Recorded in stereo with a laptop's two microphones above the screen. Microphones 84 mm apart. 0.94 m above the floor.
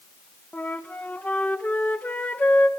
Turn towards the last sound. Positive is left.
turn(degrees=20)  # may be behind; listen again after turning